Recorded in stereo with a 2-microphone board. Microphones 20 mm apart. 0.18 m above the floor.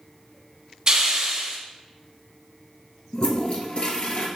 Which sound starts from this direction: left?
A toilet flushing, at 3.1 s.